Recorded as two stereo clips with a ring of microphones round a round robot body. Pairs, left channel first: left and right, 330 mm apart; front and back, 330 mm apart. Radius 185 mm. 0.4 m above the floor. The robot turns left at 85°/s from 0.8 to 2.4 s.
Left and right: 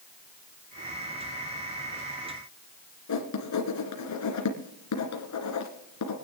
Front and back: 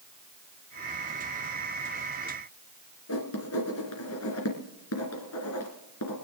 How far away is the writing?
About 3 m.